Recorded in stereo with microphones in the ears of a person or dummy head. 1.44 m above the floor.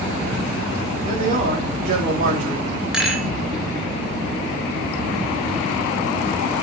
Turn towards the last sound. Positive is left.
turn(degrees=-5)  # may be behind; listen again after turning